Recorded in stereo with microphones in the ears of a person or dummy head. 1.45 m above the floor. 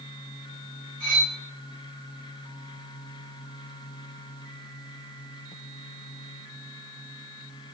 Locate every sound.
1.0 s cutlery clinking: 65° left (ahead or behind), 1.7 m